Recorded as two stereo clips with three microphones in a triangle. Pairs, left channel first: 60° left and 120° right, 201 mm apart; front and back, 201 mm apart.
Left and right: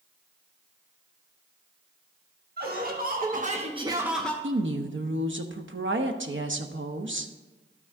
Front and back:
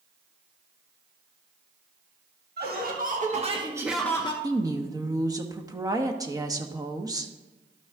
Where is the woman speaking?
110° right, 0.8 m.